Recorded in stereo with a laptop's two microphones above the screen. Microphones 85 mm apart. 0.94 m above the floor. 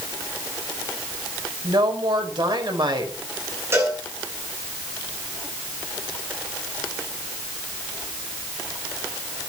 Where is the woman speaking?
65° right (ahead or behind), 4.5 m.